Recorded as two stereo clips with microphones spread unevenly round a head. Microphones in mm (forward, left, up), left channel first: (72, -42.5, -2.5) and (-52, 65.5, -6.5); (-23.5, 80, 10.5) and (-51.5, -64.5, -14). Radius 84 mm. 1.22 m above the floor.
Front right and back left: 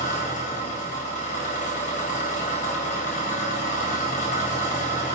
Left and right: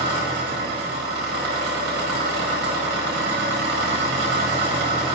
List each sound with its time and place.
0.0 s an engine running: 90° right, 1.6 m